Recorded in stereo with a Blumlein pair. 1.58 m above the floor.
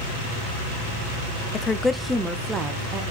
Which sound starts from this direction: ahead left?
A woman speaking, at 1.5 s.